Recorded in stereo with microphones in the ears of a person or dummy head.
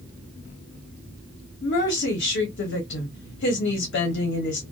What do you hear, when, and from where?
1.6 s a woman speaking: 55° left (ahead or behind), 0.8 m